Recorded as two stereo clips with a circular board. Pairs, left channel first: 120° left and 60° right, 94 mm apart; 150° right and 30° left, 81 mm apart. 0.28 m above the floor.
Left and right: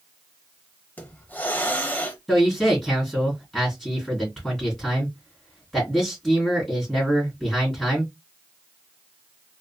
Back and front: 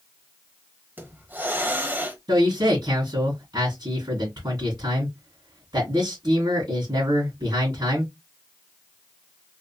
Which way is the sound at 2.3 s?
35° left.